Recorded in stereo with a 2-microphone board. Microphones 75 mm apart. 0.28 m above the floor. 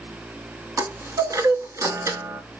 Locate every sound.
0.8 s a chime: 50° right (ahead or behind), 0.6 m